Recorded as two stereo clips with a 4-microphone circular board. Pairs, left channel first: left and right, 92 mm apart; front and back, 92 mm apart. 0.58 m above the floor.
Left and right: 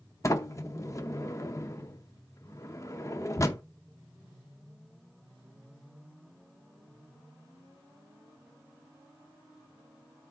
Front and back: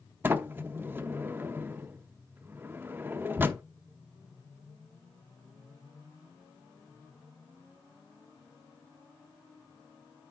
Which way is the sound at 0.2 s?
125° left.